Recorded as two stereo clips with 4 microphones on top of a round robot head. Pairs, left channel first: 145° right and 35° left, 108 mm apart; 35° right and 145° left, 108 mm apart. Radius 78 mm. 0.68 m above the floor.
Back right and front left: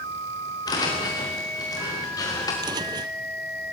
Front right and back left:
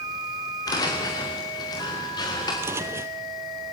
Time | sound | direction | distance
0.7 | footsteps | 90° right | 5 m
2.6 | footsteps | 80° left | 0.9 m